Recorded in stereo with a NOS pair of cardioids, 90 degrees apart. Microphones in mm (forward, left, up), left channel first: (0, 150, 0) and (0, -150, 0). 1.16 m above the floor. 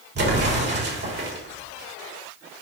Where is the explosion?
35° right, 3.5 m.